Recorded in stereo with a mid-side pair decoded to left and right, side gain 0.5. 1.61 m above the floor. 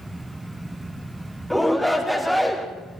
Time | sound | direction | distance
0.0 | a fan | 10° right | 1.1 m
1.5 | a shout | straight ahead | 4 m